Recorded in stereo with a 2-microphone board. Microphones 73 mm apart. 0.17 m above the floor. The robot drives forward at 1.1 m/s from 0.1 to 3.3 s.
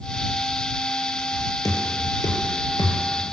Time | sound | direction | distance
1.6 | knocking | 55° left (ahead or behind) | 4 m